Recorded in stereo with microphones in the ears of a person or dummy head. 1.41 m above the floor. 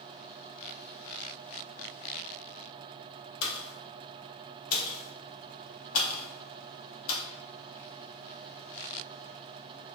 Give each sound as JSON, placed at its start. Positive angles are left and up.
{"t": 3.4, "sound": "a pop", "side_deg": 85, "distance_m": 0.5}